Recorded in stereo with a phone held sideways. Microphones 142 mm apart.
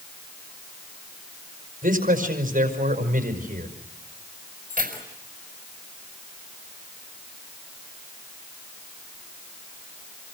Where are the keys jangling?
65° right (ahead or behind), 5 m.